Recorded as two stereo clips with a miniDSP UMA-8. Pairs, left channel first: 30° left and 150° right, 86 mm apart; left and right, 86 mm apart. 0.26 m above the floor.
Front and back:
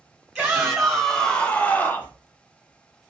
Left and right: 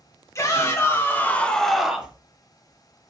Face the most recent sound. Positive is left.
turn(degrees=-20)